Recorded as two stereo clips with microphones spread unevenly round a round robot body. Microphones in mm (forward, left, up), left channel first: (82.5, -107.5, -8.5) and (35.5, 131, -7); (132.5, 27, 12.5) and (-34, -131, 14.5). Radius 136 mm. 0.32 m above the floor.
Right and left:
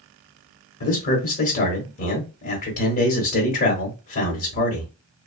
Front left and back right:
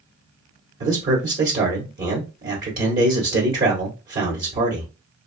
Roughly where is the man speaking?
Behind right.